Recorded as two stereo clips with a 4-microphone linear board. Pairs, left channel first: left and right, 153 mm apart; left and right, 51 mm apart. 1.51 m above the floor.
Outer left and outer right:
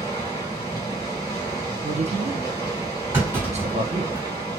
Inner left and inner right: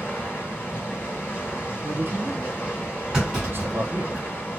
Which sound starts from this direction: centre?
A clunk, at 3.1 s.